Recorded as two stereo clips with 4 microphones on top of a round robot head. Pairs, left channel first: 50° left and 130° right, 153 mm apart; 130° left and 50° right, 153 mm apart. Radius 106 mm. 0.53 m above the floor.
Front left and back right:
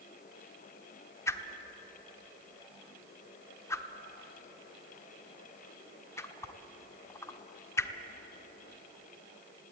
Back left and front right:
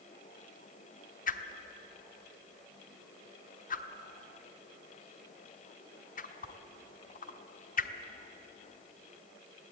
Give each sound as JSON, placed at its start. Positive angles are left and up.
{"t": 1.3, "sound": "a whoosh", "azimuth_deg": 120, "distance_m": 1.2}